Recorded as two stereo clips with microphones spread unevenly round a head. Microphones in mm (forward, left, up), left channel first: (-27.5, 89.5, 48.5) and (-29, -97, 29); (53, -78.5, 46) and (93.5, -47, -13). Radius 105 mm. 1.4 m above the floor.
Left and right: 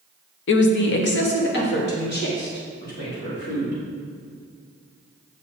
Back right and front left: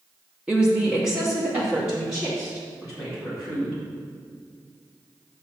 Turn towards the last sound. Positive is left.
turn(degrees=120)